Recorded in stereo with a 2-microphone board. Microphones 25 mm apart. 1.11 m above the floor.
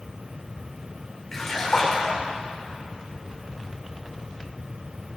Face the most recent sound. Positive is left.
turn(degrees=25)  # may be behind; listen again after turning